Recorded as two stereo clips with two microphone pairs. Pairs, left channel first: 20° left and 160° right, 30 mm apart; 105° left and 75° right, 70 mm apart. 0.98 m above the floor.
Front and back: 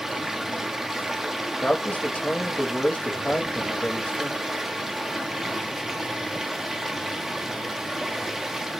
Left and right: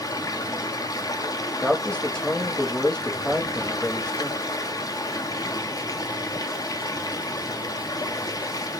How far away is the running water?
About 0.8 m.